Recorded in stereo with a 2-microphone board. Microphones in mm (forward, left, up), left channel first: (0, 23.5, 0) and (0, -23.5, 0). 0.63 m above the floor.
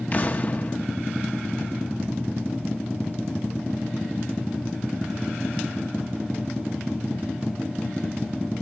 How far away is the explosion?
About 0.9 m.